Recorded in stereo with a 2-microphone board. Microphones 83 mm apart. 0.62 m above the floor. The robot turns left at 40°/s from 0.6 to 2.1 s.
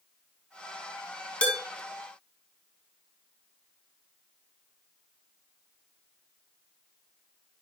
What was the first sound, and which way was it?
Dishes clattering, 15° left (ahead or behind).